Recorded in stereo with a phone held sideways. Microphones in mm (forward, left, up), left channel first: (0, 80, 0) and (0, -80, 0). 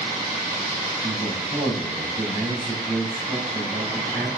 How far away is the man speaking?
About 4.5 m.